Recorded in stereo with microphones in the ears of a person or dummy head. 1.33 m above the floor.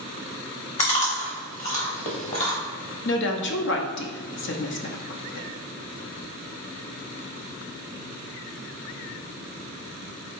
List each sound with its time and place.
0.8 s chewing: 40° left (ahead or behind), 0.9 m
3.0 s a woman speaking: 55° left (ahead or behind), 0.6 m